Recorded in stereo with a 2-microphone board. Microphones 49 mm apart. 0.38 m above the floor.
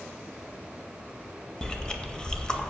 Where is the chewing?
15° left (ahead or behind), 0.6 m.